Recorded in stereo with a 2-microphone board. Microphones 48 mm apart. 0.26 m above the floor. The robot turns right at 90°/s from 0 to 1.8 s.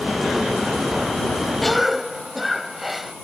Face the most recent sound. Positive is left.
turn(degrees=0)  # may be behind; listen again after turning